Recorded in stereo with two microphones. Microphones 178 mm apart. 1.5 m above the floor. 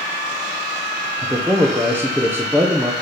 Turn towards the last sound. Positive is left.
turn(degrees=-10)  # may be behind; listen again after turning